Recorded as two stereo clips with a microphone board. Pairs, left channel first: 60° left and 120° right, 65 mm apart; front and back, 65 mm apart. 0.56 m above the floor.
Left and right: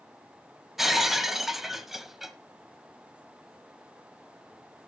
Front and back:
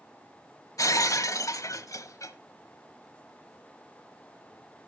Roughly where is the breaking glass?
Ahead right.